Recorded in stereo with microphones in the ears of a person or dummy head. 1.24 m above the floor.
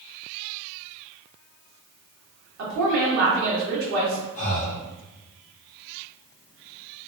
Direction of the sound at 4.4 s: 40° left (ahead or behind).